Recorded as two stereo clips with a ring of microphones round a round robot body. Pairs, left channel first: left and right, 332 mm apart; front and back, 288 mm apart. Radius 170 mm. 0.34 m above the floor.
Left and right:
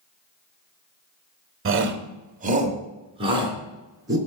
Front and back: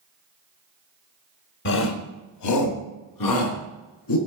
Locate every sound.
1.6 s a shout: 45° right, 1.4 m; by 4.2 s 10° right, 4 m